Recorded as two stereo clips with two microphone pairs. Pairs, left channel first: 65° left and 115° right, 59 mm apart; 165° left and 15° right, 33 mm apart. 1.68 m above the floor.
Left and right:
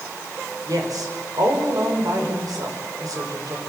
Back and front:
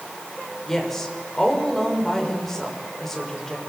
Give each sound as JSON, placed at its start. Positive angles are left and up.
{"t": 0.7, "sound": "a woman speaking", "azimuth_deg": -110, "distance_m": 6.0}